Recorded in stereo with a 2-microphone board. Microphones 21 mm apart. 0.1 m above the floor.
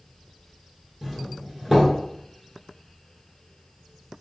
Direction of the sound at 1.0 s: 10° right (ahead or behind).